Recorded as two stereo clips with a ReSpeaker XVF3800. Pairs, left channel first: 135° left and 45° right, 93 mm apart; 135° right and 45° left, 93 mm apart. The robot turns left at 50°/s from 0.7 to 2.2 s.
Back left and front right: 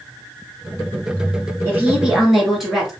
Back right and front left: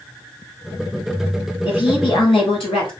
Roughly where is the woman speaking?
Right.